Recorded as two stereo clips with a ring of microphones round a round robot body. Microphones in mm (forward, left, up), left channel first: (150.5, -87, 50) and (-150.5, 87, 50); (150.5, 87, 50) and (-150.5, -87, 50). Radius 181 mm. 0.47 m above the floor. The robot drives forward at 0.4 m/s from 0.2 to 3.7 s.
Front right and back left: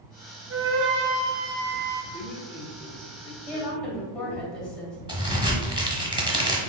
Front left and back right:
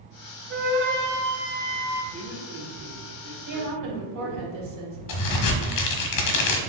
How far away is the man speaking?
About 0.9 m.